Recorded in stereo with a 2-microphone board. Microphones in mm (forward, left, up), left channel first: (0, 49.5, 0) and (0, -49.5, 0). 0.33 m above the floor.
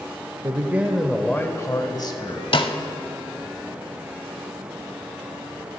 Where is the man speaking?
35° right (ahead or behind), 0.9 m; by 2.4 s 50° left (ahead or behind), 1.6 m.